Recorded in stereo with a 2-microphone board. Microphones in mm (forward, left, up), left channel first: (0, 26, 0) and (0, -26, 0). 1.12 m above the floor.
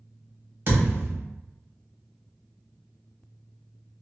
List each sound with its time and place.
0.7 s a thud: 50° right (ahead or behind), 1.5 m